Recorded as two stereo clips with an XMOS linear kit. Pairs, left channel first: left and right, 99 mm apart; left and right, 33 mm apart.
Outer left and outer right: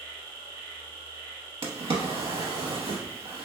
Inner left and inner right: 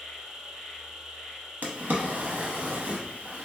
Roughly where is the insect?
Right.